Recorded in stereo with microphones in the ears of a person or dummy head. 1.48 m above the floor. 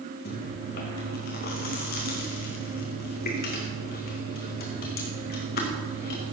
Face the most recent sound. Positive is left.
turn(degrees=45)  # may be behind; listen again after turning